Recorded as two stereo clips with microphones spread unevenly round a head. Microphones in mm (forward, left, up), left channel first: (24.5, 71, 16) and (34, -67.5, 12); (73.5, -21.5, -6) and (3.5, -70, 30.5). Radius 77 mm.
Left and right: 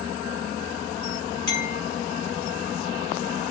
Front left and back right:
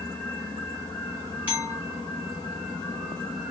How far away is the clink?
About 1.1 m.